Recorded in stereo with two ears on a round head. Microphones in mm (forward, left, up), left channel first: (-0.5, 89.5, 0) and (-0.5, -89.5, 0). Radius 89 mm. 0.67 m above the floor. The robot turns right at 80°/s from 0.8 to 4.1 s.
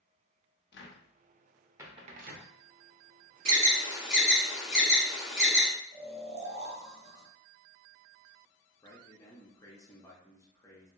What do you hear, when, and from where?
0.7 s a cupboard door: 60° left (ahead or behind), 0.6 m; by 2.5 s 70° right (ahead or behind), 0.6 m
3.5 s an alarm: 50° right (ahead or behind), 0.7 m; by 5.7 s 5° right (ahead or behind), 0.7 m
5.9 s snoring: 30° right (ahead or behind), 0.8 m
8.8 s a man speaking: 15° left (ahead or behind), 0.7 m